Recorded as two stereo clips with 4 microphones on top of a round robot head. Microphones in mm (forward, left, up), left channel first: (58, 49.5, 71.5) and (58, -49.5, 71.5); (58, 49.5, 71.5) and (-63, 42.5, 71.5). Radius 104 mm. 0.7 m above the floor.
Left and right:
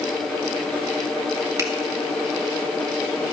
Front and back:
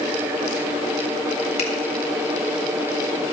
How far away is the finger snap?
About 3 m.